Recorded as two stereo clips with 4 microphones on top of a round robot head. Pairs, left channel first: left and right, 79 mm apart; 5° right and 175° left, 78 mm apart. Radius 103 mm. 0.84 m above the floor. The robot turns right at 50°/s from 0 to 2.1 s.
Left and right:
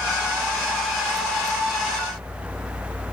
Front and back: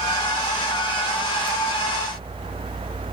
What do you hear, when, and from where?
Only background noise.